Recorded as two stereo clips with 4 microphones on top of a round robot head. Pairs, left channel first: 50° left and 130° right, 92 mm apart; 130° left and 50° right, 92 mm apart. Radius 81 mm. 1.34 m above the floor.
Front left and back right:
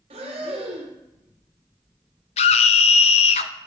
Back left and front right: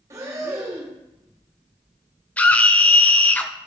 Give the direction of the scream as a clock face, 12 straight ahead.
10 o'clock.